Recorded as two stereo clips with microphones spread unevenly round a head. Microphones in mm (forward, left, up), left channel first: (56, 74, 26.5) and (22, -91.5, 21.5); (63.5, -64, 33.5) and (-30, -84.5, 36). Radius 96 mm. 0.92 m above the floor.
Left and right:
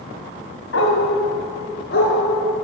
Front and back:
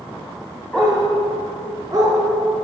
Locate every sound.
0.7 s a dog barking: 100° left, 1.8 m; by 2.1 s 120° left, 3.5 m